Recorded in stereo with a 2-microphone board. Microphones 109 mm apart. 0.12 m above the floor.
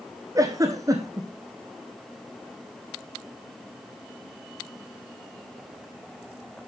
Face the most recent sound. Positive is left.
turn(degrees=-30)  # may be behind; listen again after turning